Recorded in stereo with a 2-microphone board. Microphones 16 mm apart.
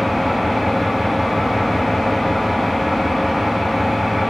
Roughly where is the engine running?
Centre.